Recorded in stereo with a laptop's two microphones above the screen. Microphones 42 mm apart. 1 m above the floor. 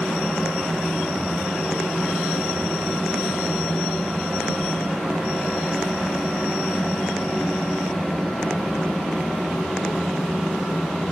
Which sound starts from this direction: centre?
A fan, at 0.0 s.